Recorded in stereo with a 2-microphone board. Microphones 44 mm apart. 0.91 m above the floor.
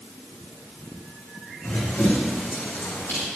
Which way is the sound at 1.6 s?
75° left (ahead or behind).